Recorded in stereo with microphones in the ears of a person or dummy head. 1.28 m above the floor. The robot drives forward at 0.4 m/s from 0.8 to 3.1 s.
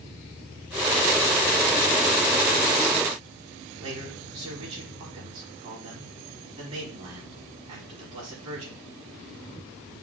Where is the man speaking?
40° right (ahead or behind), 4 m.